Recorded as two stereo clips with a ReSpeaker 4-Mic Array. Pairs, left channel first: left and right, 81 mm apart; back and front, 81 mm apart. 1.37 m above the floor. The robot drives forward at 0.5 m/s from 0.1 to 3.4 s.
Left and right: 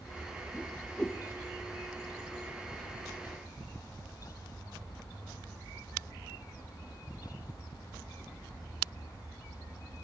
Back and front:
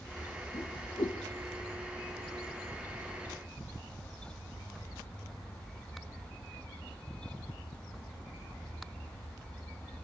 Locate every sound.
0.5 s a whoosh: 170° left, 0.8 m; by 1.2 s 175° left, 1.1 m